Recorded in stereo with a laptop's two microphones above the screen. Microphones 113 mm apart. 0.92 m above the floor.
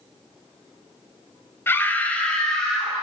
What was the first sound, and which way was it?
A scream, 20° left (ahead or behind).